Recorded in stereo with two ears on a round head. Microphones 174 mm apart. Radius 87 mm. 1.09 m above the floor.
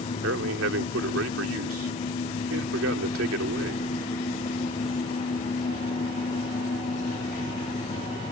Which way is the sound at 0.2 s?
80° right.